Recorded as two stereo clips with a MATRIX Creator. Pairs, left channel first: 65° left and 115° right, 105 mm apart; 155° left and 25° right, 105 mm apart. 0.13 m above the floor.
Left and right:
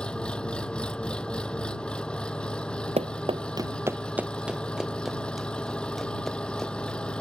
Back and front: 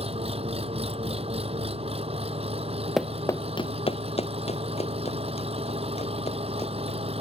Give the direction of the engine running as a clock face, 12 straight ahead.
12 o'clock.